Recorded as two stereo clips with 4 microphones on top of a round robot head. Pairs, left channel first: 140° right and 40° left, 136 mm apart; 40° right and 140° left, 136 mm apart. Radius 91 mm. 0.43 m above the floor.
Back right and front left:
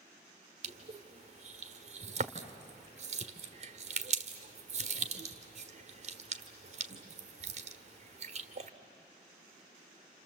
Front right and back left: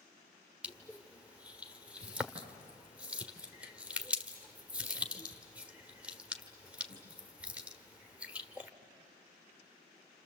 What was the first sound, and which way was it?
Crushing, 60° left.